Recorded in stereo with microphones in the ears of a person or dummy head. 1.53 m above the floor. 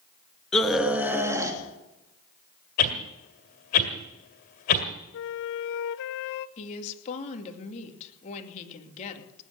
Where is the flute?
65° left (ahead or behind), 0.9 m.